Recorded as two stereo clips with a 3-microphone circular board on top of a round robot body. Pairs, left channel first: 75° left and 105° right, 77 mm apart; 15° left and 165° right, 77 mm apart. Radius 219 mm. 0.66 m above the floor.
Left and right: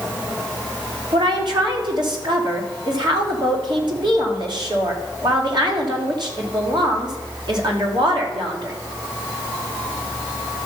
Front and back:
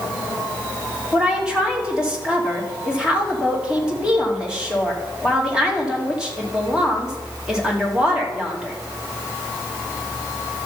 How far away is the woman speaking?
About 3 m.